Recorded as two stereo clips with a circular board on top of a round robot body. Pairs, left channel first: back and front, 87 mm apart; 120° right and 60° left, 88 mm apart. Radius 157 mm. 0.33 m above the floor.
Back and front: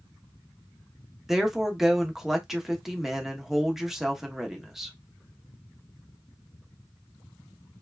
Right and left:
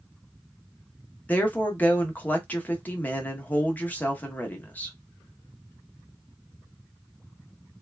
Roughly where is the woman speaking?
Right.